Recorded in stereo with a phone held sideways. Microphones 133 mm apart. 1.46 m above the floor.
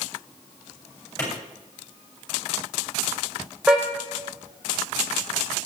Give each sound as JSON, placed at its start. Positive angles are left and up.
{"t": 1.2, "sound": "a clap", "side_deg": 20, "distance_m": 6.5}
{"t": 3.7, "sound": "a car horn", "side_deg": -5, "distance_m": 3.0}